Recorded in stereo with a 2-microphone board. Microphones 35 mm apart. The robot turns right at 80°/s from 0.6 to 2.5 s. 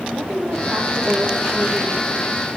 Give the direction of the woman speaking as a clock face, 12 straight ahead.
2 o'clock.